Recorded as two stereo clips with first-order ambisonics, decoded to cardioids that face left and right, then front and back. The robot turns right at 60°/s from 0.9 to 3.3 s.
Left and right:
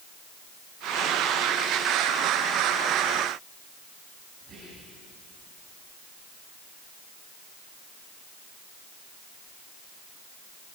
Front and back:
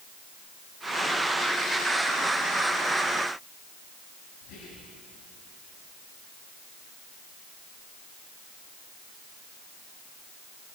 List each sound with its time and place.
4.4 s whispering: 25° right, 8 m